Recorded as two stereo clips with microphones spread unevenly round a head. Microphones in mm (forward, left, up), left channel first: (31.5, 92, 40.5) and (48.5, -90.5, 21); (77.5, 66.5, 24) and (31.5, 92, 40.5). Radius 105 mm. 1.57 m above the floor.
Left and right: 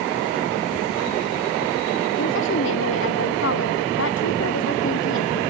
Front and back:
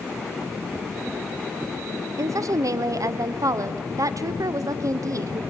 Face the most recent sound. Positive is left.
turn(degrees=130)